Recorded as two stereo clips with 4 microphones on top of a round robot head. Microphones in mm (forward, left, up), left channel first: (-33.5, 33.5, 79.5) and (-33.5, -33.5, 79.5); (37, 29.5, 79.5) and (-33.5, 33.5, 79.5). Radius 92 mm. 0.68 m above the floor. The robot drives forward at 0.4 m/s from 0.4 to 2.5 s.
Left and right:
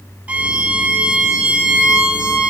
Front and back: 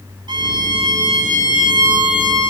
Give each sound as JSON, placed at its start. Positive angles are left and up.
{"t": 0.3, "sound": "a violin", "azimuth_deg": -160, "distance_m": 3.0}